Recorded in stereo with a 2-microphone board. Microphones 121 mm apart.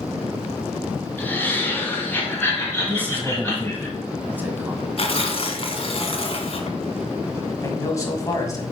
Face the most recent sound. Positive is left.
turn(degrees=25)  # may be behind; listen again after turning